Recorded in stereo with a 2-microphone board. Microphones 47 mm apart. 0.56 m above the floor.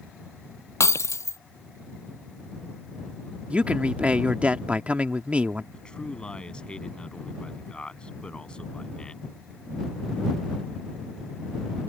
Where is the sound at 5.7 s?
20° left (ahead or behind).